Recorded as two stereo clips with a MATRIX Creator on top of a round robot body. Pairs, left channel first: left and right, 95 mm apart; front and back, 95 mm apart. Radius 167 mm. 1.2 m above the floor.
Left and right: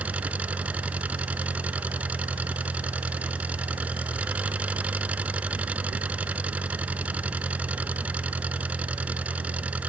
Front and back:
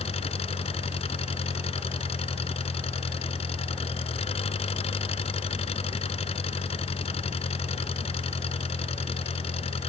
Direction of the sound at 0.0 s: 15° right.